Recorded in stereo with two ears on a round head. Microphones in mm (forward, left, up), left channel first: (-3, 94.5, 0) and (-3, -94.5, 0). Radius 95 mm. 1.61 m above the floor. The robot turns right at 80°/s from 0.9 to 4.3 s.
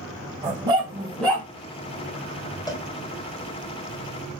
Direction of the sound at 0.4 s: 20° right.